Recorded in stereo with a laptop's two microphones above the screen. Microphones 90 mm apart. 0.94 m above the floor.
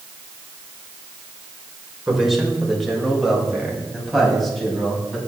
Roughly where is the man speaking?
Centre.